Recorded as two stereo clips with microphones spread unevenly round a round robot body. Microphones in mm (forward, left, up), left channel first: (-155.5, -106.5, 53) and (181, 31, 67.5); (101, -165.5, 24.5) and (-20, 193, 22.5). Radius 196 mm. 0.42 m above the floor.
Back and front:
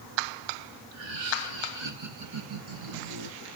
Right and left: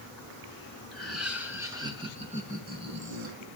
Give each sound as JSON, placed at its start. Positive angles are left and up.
{"t": 0.9, "sound": "laughter", "azimuth_deg": 15, "distance_m": 6.0}